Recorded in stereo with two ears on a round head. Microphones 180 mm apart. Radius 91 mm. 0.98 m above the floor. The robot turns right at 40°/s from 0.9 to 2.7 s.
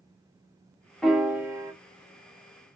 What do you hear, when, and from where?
1.0 s a piano: centre (ahead or behind), 0.6 m; by 1.7 s 15° right (ahead or behind), 0.6 m